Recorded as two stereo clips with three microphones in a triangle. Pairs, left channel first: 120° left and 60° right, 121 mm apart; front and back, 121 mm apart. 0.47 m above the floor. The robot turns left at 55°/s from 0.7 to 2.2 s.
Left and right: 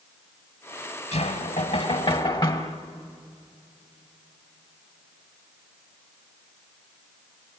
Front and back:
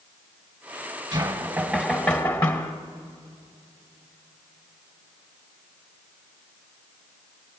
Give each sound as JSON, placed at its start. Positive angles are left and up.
{"t": 1.1, "sound": "knocking", "azimuth_deg": 135, "distance_m": 1.8}